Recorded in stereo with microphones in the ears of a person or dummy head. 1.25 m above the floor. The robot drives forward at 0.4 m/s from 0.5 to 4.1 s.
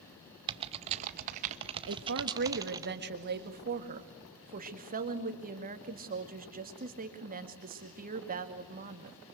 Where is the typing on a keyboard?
25° right (ahead or behind), 0.6 m; by 2.9 s 20° right (ahead or behind), 0.8 m.